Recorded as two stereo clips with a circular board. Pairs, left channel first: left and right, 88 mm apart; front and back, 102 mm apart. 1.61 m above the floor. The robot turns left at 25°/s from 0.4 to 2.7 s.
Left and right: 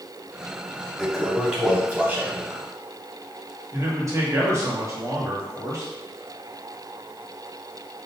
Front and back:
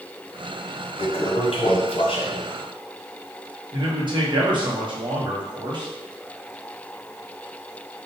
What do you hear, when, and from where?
1.0 s a toilet flushing: 5° left, 0.9 m; by 2.6 s 40° right, 0.9 m
3.7 s a man speaking: 140° right, 1.3 m